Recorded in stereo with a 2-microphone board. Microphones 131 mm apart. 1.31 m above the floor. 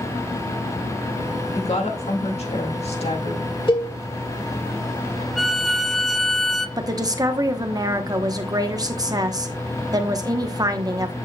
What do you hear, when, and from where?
1.6 s a woman speaking: 55° left (ahead or behind), 2 m
3.7 s a cowbell: 40° left (ahead or behind), 1.5 m
5.4 s a violin: centre (ahead or behind), 0.6 m
6.8 s a woman speaking: 30° right (ahead or behind), 1.0 m